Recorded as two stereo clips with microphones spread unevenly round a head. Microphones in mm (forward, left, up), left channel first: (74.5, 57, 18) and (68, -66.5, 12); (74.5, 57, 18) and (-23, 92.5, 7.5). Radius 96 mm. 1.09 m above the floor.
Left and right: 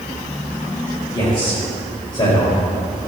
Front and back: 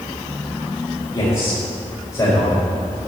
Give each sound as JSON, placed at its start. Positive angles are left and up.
{"t": 1.1, "sound": "a man speaking", "azimuth_deg": 35, "distance_m": 4.5}